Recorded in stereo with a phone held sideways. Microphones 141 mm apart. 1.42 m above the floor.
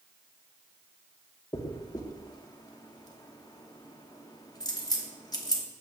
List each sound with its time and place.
1.5 s a dropped coin: 25° left (ahead or behind), 1.0 m